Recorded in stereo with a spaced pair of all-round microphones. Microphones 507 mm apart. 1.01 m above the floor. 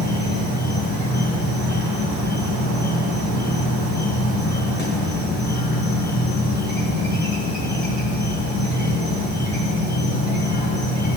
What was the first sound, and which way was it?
An insect, 20° left (ahead or behind).